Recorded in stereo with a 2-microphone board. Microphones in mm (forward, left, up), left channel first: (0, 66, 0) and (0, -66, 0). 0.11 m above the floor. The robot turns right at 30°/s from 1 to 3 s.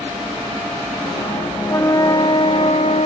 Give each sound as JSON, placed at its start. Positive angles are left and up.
{"t": 1.7, "sound": "a flute", "azimuth_deg": 20}